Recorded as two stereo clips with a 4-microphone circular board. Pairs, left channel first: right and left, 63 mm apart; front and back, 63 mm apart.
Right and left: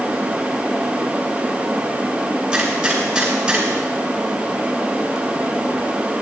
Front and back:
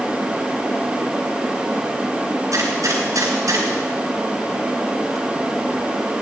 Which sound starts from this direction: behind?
A gunshot, at 2.5 s.